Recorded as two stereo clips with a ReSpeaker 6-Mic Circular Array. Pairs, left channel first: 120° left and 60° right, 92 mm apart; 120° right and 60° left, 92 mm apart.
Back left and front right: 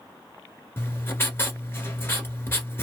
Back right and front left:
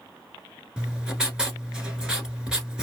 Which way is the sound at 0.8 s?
130° left.